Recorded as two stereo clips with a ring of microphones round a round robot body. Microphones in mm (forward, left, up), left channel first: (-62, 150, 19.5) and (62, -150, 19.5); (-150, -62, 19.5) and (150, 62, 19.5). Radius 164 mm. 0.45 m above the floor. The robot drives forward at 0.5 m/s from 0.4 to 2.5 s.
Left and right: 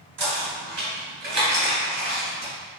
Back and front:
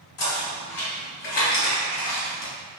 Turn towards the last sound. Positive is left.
turn(degrees=-135)